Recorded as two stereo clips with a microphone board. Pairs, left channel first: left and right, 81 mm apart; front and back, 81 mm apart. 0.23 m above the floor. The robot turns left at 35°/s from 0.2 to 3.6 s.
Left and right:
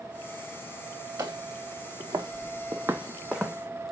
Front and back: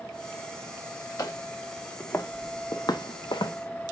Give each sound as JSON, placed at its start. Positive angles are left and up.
{"t": 1.2, "sound": "footsteps", "azimuth_deg": -45, "distance_m": 1.4}